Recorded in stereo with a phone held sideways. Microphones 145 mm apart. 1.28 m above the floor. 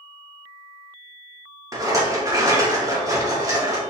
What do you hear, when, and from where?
1.7 s a rattle: 25° right (ahead or behind), 2 m